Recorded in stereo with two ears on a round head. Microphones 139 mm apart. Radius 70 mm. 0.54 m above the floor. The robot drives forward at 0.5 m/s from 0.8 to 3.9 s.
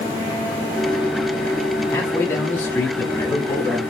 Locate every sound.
1.9 s a man speaking: 15° left (ahead or behind), 0.8 m; by 3.8 s 10° left (ahead or behind), 1.1 m